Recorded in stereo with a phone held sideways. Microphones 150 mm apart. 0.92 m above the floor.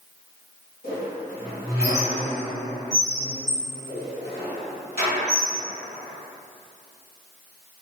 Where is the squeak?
85° left, 1.5 m.